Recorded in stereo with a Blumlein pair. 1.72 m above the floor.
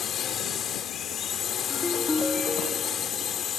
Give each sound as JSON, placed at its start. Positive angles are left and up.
{"t": 0.0, "sound": "a drone", "azimuth_deg": 25}
{"t": 1.7, "sound": "a ringtone", "azimuth_deg": 10}